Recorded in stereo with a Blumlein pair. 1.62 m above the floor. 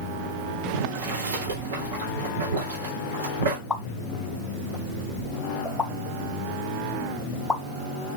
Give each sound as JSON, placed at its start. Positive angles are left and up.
{"t": 0.7, "sound": "boiling", "azimuth_deg": -65, "distance_m": 3.0}
{"t": 3.7, "sound": "a pop", "azimuth_deg": 10, "distance_m": 1.1}